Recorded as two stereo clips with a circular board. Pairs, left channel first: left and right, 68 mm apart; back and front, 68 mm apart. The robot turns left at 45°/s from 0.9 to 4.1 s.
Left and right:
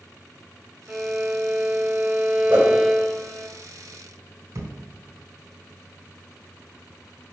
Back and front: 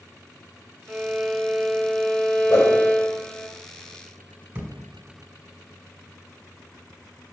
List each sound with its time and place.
0.9 s a violin: 55° right, 0.7 m; by 3.5 s 170° right, 0.7 m
2.5 s a whoosh: 150° right, 4 m; by 2.8 s 160° right, 4 m
4.5 s a thud: 55° right, 1.6 m